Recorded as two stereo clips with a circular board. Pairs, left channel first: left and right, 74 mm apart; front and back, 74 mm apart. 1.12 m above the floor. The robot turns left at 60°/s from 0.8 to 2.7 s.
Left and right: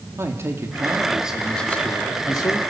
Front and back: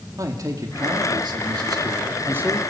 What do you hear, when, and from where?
0.2 s a man speaking: 145° right, 2.5 m; by 2.6 s 105° left, 2.5 m